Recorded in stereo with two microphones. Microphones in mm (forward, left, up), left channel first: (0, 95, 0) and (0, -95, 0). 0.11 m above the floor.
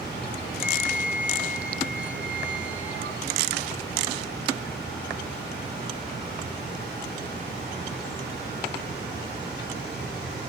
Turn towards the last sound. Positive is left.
turn(degrees=-80)